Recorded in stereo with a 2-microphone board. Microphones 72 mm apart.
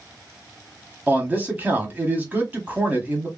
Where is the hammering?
I don't hear hammering.